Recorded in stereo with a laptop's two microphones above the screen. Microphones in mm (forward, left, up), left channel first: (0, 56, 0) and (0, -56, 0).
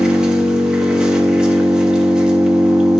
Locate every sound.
0.0 s an engine running: 10° right (ahead or behind), 0.9 m